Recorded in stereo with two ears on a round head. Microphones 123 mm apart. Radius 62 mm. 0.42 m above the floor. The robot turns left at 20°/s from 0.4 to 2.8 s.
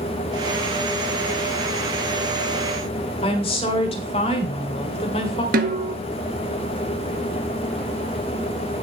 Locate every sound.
3.2 s a woman speaking: 45° left (ahead or behind), 1.8 m
5.5 s a snare drum: 75° right (ahead or behind), 1.1 m